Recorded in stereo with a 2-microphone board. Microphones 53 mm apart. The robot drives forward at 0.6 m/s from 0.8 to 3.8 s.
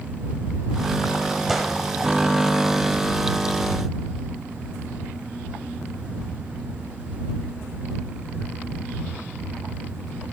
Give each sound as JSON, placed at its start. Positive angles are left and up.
{"t": 1.5, "sound": "a gunshot", "side_deg": -5, "distance_m": 0.9}